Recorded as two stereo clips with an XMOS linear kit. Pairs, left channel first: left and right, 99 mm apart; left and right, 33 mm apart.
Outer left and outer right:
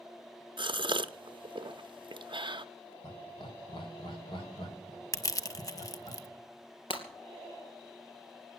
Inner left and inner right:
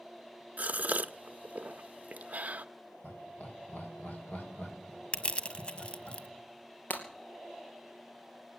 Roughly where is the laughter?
Left.